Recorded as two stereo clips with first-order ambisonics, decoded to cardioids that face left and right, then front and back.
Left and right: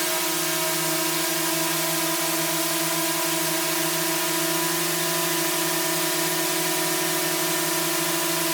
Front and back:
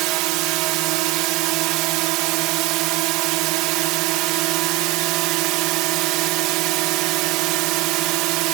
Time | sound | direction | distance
0.0 | a drone | 175° right | ?